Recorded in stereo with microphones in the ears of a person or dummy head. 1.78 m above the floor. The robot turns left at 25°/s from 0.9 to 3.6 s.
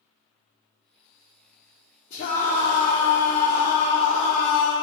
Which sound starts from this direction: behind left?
A scream, at 2.1 s.